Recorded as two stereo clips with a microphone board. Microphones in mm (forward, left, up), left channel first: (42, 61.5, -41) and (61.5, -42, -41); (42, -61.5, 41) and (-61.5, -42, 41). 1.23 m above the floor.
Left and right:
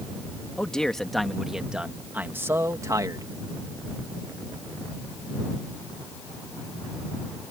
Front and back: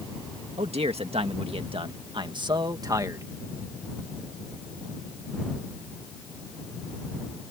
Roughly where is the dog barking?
No dog barking in this recording.